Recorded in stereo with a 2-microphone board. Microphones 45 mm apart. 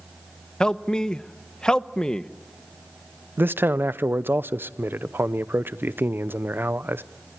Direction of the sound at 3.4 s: 55° right (ahead or behind).